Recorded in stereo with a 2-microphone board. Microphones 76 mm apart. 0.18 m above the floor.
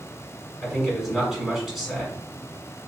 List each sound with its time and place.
0.6 s a man speaking: 5° right (ahead or behind), 1.6 m